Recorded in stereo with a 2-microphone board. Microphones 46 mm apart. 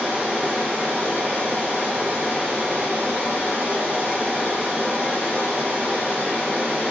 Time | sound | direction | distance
0.0 | running water | 35° right (ahead or behind) | 0.9 m